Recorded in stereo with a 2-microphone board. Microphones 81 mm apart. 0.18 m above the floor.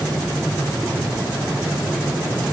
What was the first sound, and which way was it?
Only background noise.